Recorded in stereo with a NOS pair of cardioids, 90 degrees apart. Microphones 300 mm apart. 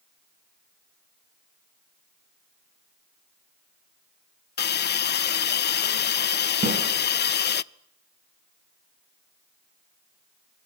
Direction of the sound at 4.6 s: 35° left.